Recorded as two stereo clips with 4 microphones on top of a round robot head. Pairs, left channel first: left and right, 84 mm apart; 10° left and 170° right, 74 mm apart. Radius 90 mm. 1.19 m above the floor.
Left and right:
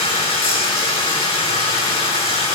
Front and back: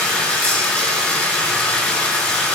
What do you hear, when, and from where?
0.0 s running water: 80° left, 9.5 m